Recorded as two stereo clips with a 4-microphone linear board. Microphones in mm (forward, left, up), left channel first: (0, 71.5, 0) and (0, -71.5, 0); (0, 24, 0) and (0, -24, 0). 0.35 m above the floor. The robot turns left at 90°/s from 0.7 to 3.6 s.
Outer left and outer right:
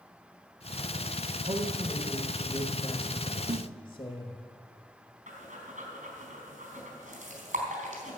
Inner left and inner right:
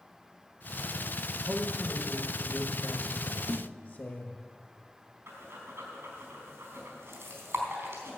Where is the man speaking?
100° right, 1.2 m; by 4.4 s 70° left, 1.2 m.